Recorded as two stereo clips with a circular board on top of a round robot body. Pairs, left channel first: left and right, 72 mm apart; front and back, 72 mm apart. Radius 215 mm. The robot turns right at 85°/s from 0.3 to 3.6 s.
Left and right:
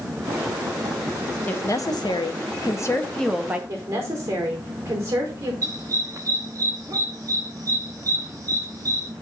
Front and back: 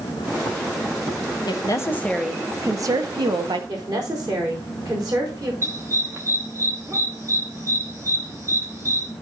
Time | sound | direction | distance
1.5 | a woman speaking | 25° left | 1.5 m
3.7 | a woman speaking | 145° right | 4.5 m
5.6 | a dog barking | 130° right | 0.6 m